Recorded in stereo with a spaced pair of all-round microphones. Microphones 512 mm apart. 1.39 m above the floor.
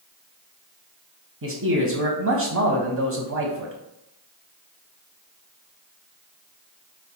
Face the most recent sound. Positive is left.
turn(degrees=-35)  # may be behind; listen again after turning